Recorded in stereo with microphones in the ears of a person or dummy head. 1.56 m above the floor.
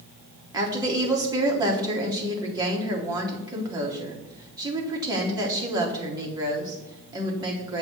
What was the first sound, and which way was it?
A woman speaking, 15° right (ahead or behind).